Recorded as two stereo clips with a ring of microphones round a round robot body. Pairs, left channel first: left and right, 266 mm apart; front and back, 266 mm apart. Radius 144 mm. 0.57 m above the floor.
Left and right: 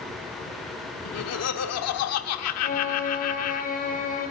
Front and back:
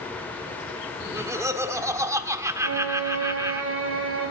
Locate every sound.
1.1 s laughter: 100° left, 1.1 m
2.6 s a violin: 145° left, 3.5 m